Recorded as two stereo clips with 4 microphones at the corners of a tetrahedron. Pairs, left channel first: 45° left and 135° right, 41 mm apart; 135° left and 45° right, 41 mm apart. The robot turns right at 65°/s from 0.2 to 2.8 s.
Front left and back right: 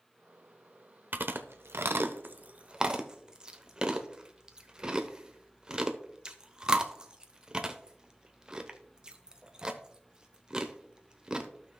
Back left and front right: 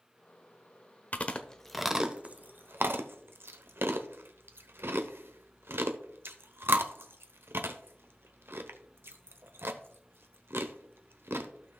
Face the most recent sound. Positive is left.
turn(degrees=-65)